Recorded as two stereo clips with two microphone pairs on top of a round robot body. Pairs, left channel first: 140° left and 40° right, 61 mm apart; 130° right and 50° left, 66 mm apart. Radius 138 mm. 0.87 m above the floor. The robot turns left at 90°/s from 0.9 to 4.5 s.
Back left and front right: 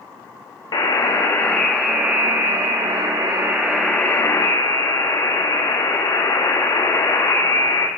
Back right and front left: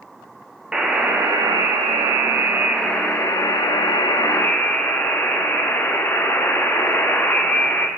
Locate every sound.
0.7 s a buzzer: 130° left, 0.6 m; by 7.9 s 170° left, 0.6 m